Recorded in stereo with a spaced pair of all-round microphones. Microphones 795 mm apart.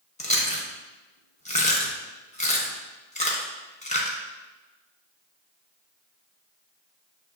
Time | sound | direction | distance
0.2 | chewing | 10° left (ahead or behind) | 0.7 m